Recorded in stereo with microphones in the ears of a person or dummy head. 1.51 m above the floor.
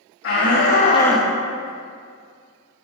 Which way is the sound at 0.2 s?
70° left (ahead or behind).